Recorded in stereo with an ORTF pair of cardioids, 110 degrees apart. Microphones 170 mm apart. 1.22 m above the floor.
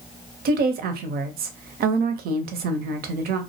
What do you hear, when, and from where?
0.5 s a woman speaking: 65° right, 0.7 m